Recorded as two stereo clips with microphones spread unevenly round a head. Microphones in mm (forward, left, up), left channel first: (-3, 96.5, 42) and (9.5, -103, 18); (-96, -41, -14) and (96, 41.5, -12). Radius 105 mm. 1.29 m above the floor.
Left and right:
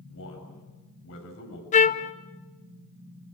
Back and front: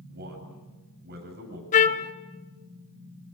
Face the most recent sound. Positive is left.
turn(degrees=150)